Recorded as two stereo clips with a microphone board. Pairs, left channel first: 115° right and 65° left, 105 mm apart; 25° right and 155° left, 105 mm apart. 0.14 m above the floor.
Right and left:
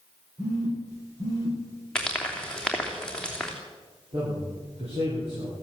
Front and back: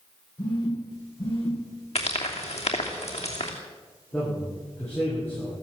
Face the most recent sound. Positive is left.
turn(degrees=55)